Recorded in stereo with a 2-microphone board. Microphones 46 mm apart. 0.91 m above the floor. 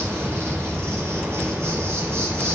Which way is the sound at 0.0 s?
65° right (ahead or behind).